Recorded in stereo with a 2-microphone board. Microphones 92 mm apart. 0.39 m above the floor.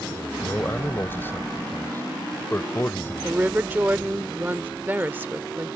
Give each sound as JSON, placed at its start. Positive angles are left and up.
{"t": 0.4, "sound": "a man speaking", "side_deg": 25}
{"t": 3.2, "sound": "a woman speaking", "side_deg": -20}